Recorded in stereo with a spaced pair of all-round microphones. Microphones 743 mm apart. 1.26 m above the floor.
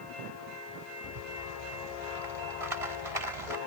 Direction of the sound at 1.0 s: 50° right (ahead or behind).